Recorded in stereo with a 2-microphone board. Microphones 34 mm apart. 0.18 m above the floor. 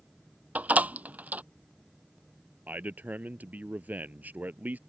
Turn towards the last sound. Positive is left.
turn(degrees=-55)  # may be behind; listen again after turning